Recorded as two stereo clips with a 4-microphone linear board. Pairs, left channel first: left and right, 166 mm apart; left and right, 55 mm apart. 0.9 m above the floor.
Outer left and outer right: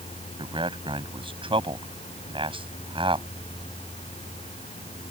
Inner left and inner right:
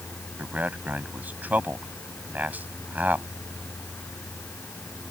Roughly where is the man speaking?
Right.